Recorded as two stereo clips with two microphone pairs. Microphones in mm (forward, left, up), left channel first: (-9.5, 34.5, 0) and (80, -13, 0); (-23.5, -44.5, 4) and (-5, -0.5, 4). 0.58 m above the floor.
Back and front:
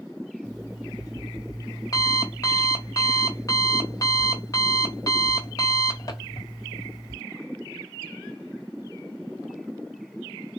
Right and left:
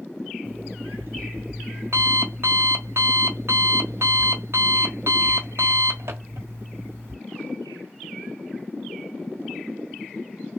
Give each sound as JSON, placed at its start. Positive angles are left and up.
{"t": 0.4, "sound": "an alarm clock", "azimuth_deg": 95, "distance_m": 1.1}